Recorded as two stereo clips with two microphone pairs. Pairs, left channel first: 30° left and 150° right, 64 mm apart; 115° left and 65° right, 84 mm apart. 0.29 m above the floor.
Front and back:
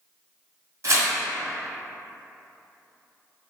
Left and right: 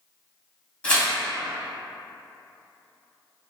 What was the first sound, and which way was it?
Tearing paper, 170° right.